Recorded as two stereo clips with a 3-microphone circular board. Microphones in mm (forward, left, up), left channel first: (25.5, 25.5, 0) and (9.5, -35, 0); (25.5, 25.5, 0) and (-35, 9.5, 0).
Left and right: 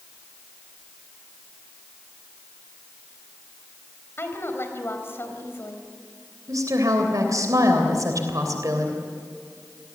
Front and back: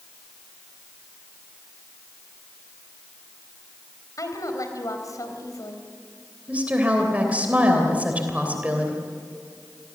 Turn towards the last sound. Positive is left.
turn(degrees=-100)